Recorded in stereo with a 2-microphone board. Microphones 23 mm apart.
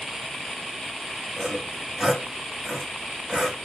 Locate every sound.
1.4 s sawing: 45° right (ahead or behind), 1.4 m